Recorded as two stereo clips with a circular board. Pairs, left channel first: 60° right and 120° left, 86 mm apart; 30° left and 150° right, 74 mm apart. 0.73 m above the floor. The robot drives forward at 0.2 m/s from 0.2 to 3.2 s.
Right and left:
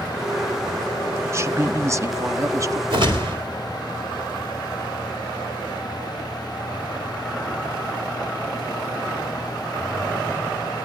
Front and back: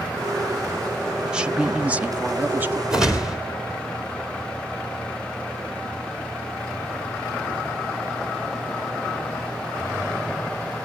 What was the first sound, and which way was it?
A woman speaking, 140° left.